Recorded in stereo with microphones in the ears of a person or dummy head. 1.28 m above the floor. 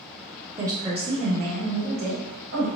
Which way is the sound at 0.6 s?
10° right (ahead or behind).